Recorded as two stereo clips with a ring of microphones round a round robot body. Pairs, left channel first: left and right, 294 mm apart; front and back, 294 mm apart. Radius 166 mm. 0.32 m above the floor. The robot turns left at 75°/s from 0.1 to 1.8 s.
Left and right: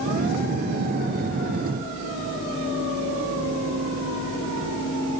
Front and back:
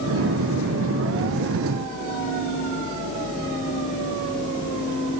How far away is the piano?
I don't hear a piano.